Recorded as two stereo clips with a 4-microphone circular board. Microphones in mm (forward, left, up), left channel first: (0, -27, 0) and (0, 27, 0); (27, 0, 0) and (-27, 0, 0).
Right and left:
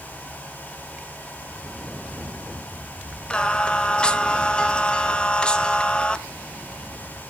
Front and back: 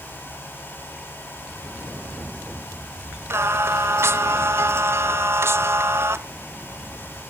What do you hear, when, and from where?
3.3 s singing: 155° right, 0.6 m